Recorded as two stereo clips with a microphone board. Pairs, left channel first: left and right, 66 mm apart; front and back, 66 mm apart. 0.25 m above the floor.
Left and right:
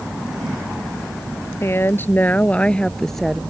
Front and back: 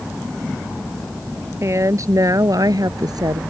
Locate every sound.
1.6 s a woman speaking: 140° left; by 3.4 s straight behind